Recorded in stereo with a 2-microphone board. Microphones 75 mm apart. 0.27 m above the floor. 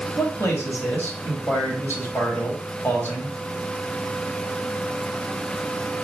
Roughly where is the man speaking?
Left.